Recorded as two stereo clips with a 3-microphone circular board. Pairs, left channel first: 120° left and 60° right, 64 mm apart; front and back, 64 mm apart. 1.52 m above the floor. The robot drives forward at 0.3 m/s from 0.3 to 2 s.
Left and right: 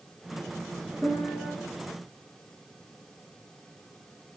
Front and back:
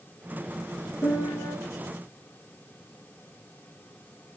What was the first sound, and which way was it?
A piano, 55° left.